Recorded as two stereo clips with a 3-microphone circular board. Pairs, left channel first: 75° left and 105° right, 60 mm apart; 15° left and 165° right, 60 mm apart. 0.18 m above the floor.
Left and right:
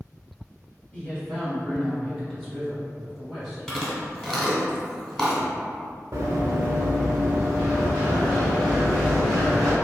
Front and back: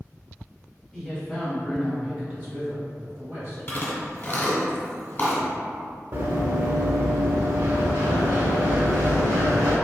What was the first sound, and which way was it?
A man speaking, 95° left.